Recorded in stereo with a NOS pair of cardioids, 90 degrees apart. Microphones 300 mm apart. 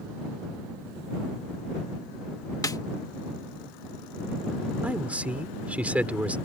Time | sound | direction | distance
2.6 | a snare drum | 10° left | ?
4.8 | a man speaking | 5° right | ?